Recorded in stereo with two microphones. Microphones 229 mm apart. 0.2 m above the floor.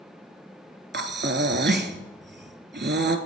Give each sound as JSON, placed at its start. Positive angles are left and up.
{"t": 0.9, "sound": "breathing", "side_deg": -45, "distance_m": 0.5}